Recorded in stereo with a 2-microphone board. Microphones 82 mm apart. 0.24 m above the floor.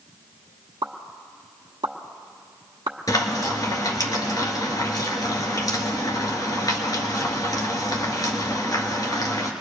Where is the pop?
65° right (ahead or behind), 1.1 m.